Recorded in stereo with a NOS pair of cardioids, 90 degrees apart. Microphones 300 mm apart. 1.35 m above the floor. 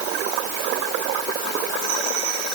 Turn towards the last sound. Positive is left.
No sound to turn to.